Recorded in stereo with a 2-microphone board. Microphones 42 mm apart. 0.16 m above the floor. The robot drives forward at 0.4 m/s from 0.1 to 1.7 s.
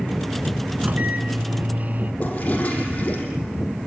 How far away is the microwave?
About 1.6 m.